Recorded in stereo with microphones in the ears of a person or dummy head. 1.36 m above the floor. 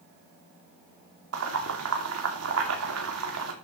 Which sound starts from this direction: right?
Boiling, at 1.3 s.